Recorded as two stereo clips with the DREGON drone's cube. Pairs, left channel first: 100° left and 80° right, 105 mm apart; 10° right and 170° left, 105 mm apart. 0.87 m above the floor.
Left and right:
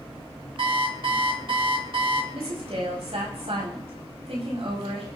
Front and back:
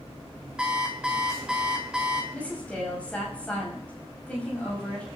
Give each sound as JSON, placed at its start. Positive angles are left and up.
{"t": 0.6, "sound": "an alarm clock", "azimuth_deg": -110, "distance_m": 2.0}
{"t": 2.3, "sound": "a woman speaking", "azimuth_deg": -90, "distance_m": 5.5}